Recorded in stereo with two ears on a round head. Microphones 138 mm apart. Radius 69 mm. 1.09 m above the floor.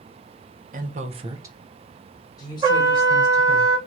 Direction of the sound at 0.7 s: 55° right (ahead or behind).